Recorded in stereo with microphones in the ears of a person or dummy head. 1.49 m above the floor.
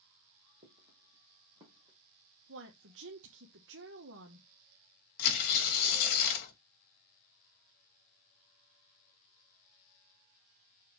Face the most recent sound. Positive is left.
turn(degrees=55)  # may be behind; listen again after turning